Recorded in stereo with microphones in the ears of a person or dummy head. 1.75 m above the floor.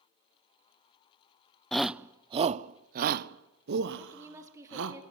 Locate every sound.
1.7 s a shout: 5° left (ahead or behind), 0.6 m; by 5.0 s 75° right (ahead or behind), 1.8 m
4.0 s a woman speaking: 10° right (ahead or behind), 3 m